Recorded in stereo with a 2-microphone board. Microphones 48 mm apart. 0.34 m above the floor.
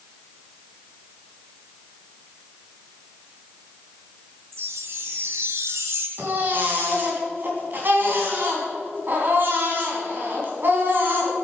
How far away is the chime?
About 1.6 m.